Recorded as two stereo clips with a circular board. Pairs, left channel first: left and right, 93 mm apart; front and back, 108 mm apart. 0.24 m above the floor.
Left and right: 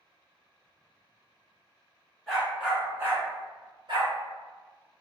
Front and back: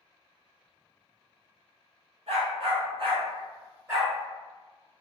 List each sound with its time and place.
2.3 s a dog barking: 175° left, 1.5 m; by 4.1 s 110° right, 1.5 m